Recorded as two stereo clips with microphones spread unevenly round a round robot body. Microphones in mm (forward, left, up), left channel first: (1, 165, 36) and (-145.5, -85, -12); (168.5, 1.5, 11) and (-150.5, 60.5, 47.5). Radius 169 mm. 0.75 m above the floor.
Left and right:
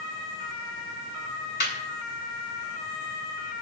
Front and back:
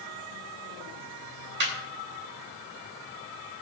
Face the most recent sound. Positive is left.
turn(degrees=115)